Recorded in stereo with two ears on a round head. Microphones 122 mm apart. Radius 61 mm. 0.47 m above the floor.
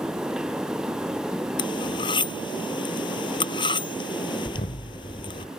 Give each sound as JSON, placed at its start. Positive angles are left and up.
{"t": 1.6, "sound": "cutlery clinking", "side_deg": 35}
{"t": 4.5, "sound": "an explosion", "side_deg": 55}